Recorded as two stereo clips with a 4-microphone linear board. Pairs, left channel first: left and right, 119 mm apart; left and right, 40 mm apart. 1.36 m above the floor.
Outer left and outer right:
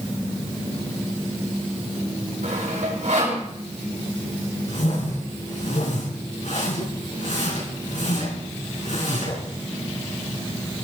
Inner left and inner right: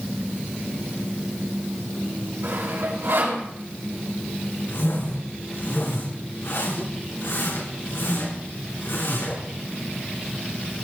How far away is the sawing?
About 5 m.